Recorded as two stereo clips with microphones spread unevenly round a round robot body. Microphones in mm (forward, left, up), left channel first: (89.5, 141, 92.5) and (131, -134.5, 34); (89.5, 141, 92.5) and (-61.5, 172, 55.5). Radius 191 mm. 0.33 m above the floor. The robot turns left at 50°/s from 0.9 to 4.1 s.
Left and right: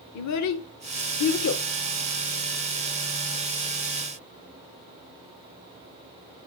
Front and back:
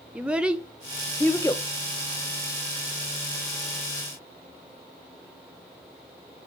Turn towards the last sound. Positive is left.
turn(degrees=-60)